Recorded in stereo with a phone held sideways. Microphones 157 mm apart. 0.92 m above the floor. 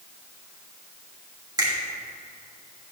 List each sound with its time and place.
1.6 s a finger snap: 25° right (ahead or behind), 2 m